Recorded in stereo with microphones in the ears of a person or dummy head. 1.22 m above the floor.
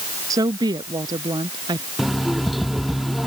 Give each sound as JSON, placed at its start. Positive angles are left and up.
{"t": 0.3, "sound": "a woman speaking", "side_deg": -15}
{"t": 2.0, "sound": "an alarm clock", "side_deg": -5}